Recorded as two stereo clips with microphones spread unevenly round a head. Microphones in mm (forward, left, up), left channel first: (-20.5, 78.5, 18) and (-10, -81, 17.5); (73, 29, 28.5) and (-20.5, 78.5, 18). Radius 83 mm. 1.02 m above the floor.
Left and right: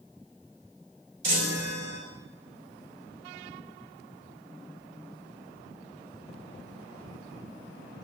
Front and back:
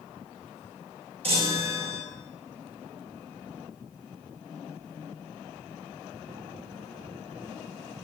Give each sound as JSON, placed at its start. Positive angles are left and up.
{"t": 1.2, "sound": "a chime", "azimuth_deg": -105, "distance_m": 4.0}